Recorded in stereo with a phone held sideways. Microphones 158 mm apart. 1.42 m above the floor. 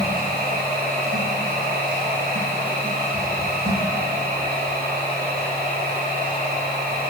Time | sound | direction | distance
0.0 | a machine running | 70° right (ahead or behind) | 5 m